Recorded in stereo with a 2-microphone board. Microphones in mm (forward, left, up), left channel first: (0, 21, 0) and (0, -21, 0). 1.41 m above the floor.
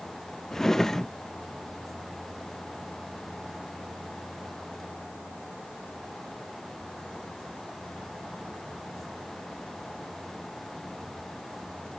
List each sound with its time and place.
0.5 s a drawer: 10° left (ahead or behind)